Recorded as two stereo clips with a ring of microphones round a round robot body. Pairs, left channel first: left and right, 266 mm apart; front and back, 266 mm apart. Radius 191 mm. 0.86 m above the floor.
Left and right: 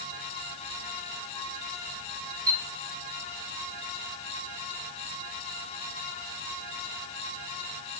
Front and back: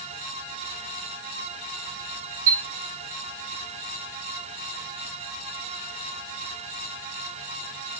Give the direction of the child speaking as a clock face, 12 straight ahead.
No child speaking in this recording.